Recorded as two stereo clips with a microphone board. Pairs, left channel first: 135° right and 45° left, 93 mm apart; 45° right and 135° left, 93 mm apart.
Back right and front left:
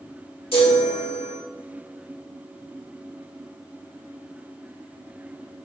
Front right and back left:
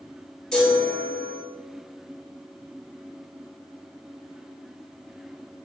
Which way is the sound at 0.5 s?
125° right.